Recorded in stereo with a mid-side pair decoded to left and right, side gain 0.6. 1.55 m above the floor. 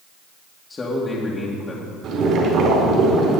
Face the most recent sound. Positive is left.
turn(degrees=-60)